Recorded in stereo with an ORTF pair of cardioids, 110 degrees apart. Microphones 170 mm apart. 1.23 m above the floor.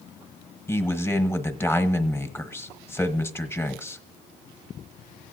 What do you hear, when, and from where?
0.7 s a man speaking: 15° left, 1.0 m